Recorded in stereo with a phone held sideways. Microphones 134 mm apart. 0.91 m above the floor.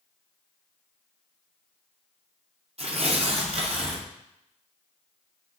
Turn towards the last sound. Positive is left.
turn(degrees=-50)  # may be behind; listen again after turning